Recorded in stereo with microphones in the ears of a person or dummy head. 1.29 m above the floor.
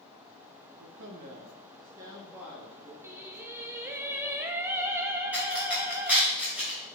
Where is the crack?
10° right (ahead or behind), 3.5 m.